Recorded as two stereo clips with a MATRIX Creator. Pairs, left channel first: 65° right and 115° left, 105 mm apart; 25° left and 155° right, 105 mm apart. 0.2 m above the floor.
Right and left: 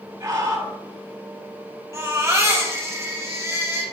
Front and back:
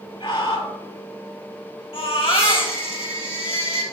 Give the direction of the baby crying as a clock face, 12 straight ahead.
10 o'clock.